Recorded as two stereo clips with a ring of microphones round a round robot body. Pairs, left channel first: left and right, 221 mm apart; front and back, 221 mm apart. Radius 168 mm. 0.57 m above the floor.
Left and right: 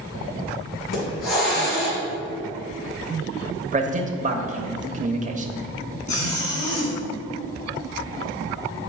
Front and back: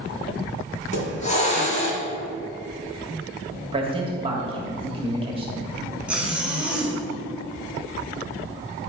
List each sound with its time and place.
0.8 s a hiss: 60° left, 2.5 m
3.7 s a man speaking: 125° right, 1.1 m
6.1 s a zipper: 95° left, 2.5 m